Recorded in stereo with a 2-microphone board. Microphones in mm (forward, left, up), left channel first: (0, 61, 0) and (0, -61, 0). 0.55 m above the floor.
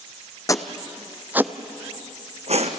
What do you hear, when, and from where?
0.5 s footsteps: 30° left (ahead or behind), 1.2 m; by 2.8 s 65° right (ahead or behind), 1.6 m